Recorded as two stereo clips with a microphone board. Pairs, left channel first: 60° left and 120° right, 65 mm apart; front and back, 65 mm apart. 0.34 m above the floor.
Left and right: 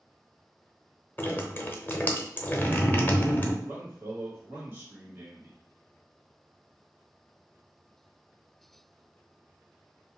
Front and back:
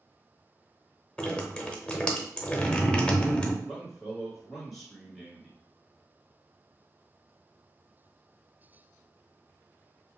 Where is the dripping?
60° left, 0.7 m.